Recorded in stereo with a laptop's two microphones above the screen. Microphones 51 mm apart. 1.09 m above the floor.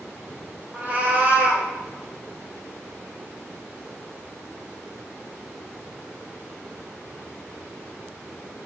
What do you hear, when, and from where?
0.7 s a cat meowing: 30° right (ahead or behind), 0.5 m